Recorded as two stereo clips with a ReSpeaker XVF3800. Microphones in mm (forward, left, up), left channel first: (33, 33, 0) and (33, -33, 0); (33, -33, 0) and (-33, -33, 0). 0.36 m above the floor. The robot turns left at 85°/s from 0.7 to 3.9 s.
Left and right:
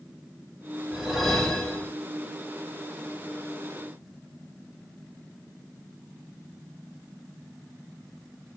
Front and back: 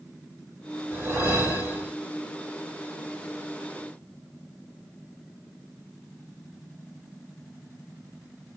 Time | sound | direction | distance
0.9 | a whoosh | 155° right | 1.7 m